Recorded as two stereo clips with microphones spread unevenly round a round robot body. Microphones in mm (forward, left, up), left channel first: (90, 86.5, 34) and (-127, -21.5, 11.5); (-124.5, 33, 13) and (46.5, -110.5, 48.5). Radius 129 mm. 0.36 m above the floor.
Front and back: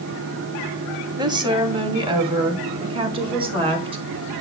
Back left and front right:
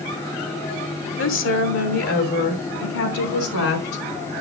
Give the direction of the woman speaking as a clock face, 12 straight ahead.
7 o'clock.